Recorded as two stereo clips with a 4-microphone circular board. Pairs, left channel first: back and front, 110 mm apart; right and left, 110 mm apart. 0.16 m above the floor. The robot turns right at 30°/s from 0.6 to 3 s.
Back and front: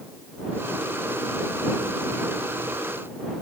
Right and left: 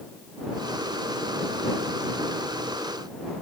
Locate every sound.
Only background noise.